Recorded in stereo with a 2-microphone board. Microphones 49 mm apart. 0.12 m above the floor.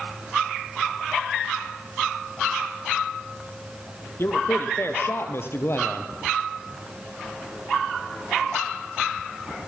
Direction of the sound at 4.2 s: 55° left (ahead or behind).